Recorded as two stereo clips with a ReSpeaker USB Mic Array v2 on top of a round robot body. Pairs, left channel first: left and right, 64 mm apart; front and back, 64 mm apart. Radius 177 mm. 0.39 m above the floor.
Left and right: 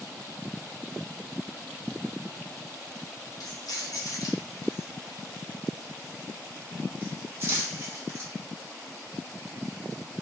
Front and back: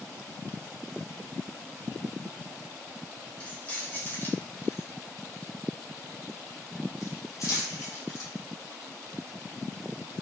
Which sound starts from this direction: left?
Keys jangling, at 3.4 s.